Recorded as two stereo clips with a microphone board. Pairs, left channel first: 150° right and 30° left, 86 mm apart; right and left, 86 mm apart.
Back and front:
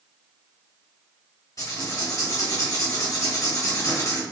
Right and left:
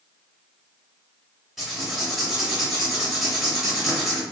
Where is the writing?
175° left, 0.9 m.